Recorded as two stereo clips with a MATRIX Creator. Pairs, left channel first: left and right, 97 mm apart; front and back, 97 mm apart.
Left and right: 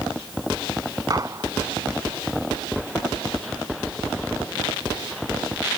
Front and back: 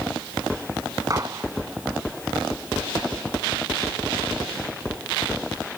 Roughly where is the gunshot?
Behind right.